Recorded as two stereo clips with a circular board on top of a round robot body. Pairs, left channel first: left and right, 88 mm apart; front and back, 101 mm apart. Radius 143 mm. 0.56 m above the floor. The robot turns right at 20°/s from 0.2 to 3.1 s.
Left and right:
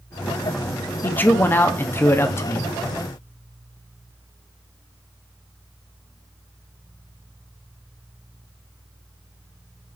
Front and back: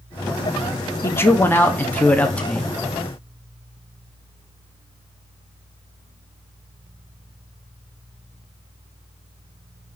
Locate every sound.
1.0 s a man speaking: 40° left, 0.8 m; by 2.7 s 70° left, 0.8 m